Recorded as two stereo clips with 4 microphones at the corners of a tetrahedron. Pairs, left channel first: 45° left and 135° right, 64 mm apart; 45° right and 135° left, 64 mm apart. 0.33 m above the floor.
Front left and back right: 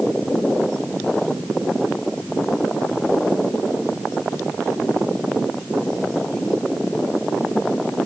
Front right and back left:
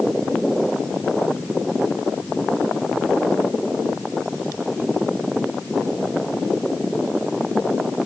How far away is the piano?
No piano in this recording.